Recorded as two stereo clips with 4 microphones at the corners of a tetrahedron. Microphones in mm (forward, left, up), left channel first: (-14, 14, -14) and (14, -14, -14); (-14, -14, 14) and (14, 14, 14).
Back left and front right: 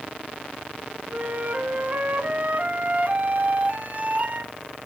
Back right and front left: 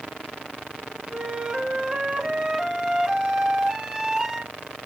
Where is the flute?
20° right, 1.0 m.